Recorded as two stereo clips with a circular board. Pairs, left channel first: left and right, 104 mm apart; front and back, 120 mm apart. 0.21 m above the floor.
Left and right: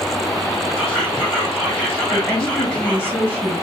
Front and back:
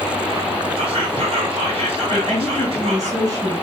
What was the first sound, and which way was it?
Whispering, 160° left.